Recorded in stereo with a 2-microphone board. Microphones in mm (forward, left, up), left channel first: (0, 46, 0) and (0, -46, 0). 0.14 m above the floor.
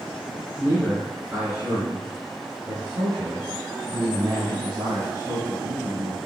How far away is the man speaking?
About 1.8 m.